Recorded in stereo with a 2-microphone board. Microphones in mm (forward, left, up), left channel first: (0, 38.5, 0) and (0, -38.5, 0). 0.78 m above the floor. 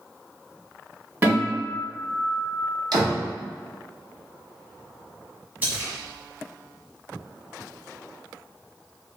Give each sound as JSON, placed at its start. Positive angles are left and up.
{"t": 1.2, "sound": "a guitar", "side_deg": -30, "distance_m": 1.6}
{"t": 2.9, "sound": "a door slam", "side_deg": -65, "distance_m": 0.8}
{"t": 5.6, "sound": "a splash", "side_deg": -25, "distance_m": 0.9}